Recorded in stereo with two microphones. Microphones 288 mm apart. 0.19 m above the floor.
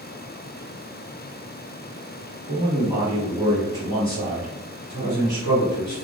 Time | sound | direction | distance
2.5 | a man speaking | 20° right (ahead or behind) | 1.3 m